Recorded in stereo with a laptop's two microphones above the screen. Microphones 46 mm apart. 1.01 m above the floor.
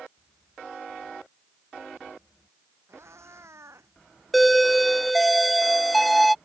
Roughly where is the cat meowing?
Right.